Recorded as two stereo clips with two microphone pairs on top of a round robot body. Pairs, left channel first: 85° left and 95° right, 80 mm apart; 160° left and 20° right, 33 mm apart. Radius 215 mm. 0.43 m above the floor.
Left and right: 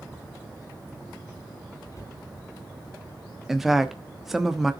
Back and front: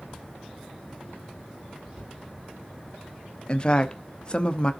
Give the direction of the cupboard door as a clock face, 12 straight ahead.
11 o'clock.